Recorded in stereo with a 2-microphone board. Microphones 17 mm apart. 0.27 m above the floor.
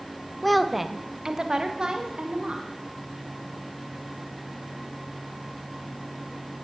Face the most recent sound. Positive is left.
turn(degrees=-60)  # may be behind; listen again after turning